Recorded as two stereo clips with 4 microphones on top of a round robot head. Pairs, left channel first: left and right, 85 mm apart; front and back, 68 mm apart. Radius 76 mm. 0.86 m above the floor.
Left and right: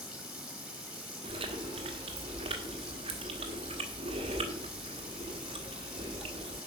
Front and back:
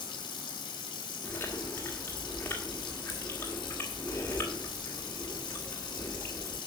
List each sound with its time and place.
0.0 s running water: 5° right, 1.6 m
1.2 s chewing: 70° right, 1.5 m